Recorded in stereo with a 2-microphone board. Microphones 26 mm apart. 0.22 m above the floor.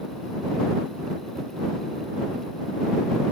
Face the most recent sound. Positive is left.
No sound to turn to.